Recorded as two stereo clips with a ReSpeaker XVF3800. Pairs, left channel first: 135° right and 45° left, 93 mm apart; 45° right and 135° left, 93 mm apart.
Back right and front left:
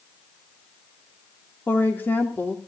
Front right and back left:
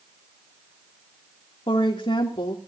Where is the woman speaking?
65° right, 3 m.